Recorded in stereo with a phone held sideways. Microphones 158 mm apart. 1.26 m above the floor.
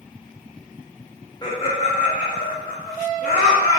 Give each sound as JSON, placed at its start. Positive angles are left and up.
{"t": 1.4, "sound": "laughter", "side_deg": 25, "distance_m": 0.5}